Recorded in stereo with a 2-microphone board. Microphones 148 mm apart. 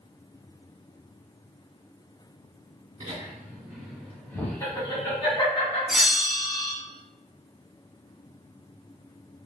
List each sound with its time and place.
3.0 s laughter: 35° right (ahead or behind), 1.4 m; by 5.8 s 45° left (ahead or behind), 1.8 m
5.9 s a bell: 5° right (ahead or behind), 1.0 m